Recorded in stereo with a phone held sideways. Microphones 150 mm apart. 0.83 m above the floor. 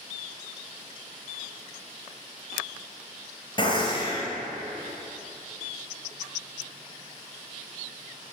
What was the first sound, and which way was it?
A gunshot, 30° left (ahead or behind).